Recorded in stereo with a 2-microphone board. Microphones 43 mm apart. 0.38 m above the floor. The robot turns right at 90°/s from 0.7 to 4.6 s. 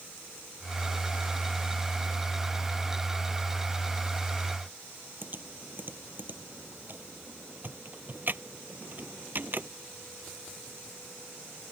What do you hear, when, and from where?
5.2 s typing on a keyboard: 45° right (ahead or behind)